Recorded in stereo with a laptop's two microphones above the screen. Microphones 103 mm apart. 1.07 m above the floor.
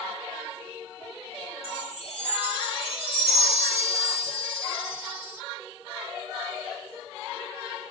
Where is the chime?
60° left (ahead or behind), 1.9 m.